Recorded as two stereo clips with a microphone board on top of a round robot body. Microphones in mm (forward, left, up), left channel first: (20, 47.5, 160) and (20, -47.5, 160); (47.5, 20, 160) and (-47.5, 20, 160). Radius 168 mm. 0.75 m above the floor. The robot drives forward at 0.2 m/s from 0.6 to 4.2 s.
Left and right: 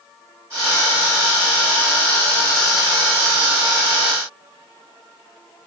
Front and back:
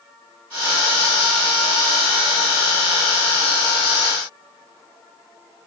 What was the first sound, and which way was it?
Only background noise.